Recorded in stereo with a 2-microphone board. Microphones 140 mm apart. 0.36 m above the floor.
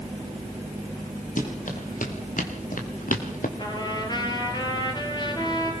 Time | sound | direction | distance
1.4 | running footsteps | 70° left (ahead or behind) | 5 m
3.6 | a trumpet | 30° left (ahead or behind) | 3.5 m